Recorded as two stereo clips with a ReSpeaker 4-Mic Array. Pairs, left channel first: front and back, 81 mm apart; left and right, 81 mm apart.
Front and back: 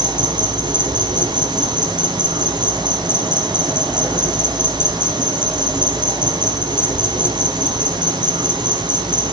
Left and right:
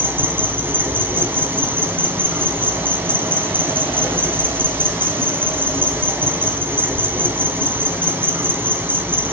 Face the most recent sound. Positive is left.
turn(degrees=-155)